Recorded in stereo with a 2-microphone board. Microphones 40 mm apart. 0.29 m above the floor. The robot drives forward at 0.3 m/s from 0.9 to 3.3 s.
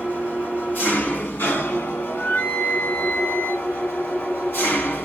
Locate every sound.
0.0 s an engine running: 60° left (ahead or behind), 1.0 m; by 5.1 s 70° left (ahead or behind), 0.9 m
2.1 s a flute: 70° left (ahead or behind), 1.1 m; by 3.7 s 50° left (ahead or behind), 1.2 m